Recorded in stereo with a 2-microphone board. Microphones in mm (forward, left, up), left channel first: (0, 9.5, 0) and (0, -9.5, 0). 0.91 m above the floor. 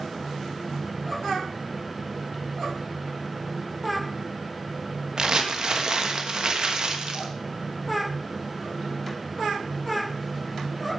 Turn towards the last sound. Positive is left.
turn(degrees=-50)  # may be behind; listen again after turning